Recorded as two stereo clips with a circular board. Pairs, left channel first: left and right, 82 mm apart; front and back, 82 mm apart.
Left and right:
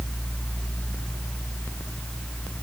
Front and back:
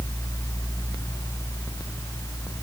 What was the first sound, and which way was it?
Only background noise.